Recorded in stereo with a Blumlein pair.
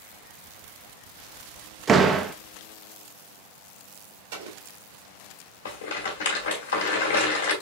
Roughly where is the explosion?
Ahead right.